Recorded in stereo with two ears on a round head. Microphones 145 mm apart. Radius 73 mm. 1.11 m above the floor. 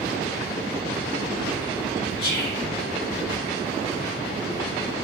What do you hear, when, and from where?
2.2 s whispering: 60° left (ahead or behind), 1.3 m